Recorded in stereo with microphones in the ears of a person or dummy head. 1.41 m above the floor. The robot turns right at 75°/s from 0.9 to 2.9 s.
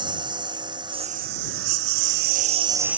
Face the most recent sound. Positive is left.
turn(degrees=-10)  # may be behind; listen again after turning